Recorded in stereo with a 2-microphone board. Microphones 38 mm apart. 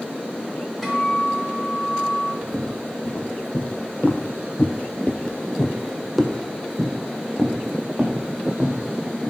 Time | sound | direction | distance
0.8 | a guitar | 5° left (ahead or behind) | 3 m
2.4 | footsteps | 25° left (ahead or behind) | 2.5 m